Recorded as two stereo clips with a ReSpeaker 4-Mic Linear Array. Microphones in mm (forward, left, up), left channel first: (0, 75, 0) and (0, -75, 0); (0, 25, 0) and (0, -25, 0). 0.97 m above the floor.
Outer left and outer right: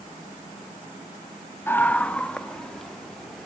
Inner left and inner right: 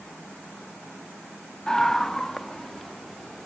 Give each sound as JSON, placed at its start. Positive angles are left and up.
{"t": 1.7, "sound": "a scream", "side_deg": 15, "distance_m": 0.8}